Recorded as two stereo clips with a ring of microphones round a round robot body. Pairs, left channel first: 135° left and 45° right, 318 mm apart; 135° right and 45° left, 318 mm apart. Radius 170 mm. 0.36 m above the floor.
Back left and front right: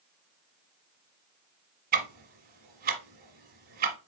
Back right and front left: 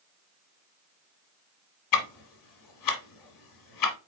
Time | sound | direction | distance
1.9 | ticking | 110° right | 1.3 m